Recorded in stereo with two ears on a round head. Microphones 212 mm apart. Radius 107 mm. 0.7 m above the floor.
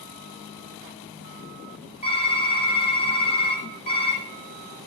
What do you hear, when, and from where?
2.0 s typing on a keyboard: 25° left (ahead or behind), 3.5 m